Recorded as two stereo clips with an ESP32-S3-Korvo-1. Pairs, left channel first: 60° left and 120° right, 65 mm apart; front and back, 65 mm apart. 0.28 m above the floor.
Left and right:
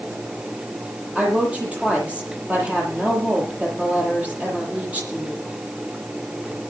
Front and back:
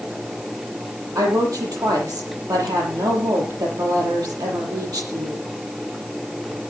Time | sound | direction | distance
1.1 | a woman speaking | 170° left | 8 m